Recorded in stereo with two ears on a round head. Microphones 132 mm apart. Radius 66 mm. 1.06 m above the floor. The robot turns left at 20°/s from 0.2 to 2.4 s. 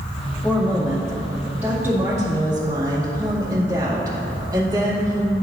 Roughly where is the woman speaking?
Ahead.